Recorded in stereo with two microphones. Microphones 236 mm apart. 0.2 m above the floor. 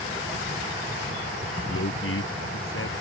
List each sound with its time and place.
1.7 s a man speaking: 60° left (ahead or behind)